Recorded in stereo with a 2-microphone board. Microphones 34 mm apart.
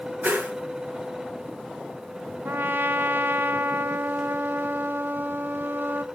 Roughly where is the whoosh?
Right.